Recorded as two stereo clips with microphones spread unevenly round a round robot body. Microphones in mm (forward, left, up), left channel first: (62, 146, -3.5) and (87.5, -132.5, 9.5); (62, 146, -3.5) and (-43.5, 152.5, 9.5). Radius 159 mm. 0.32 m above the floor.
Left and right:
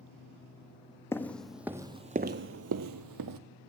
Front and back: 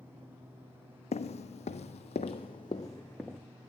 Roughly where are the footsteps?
Ahead.